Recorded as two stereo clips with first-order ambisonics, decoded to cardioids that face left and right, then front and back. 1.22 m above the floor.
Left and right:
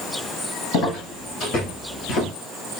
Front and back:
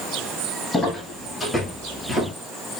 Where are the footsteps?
80° left, 1.9 m; by 2.3 s 105° left, 1.2 m.